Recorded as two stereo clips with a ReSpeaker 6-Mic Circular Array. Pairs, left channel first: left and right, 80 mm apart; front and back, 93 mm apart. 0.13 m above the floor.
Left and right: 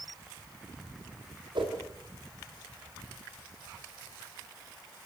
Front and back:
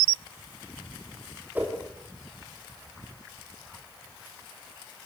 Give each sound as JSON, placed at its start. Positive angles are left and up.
{"t": 1.6, "sound": "a whoosh", "azimuth_deg": -110, "distance_m": 7.5}